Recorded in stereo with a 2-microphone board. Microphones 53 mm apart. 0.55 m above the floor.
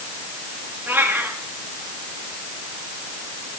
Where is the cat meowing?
35° right (ahead or behind), 5.5 m.